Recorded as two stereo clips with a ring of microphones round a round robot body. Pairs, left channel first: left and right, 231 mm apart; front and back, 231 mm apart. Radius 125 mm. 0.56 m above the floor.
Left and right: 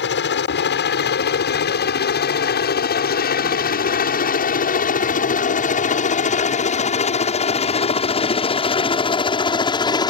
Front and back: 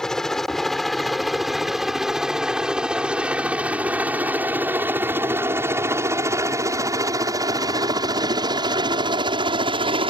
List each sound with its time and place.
0.0 s a helicopter: 85° left; by 10.1 s 140° left